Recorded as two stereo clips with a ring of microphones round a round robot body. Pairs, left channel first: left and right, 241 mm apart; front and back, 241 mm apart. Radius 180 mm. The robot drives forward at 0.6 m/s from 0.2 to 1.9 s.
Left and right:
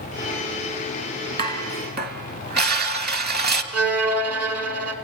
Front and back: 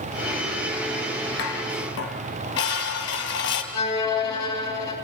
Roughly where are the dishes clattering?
Ahead right.